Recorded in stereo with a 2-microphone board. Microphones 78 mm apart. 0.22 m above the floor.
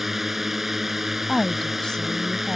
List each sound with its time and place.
0.0 s a drone: 5° right (ahead or behind)
1.3 s a woman speaking: 10° left (ahead or behind)